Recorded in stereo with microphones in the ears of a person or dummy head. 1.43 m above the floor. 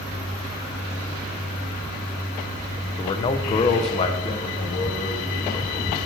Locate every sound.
3.0 s a man speaking: 25° left (ahead or behind), 0.6 m; by 6.0 s 35° left (ahead or behind), 2 m